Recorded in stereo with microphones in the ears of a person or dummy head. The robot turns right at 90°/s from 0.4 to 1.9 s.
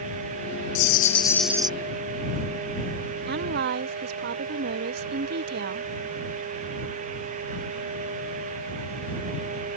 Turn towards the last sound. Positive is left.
turn(degrees=-65)  # may be behind; listen again after turning